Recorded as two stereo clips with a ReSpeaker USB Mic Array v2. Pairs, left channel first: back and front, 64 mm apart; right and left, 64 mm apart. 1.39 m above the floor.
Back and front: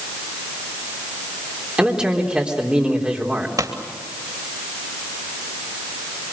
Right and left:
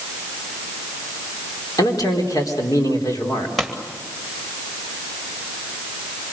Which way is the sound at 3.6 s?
Straight ahead.